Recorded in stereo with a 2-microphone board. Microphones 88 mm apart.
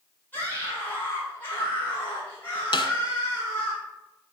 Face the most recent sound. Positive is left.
turn(degrees=70)  # may be behind; listen again after turning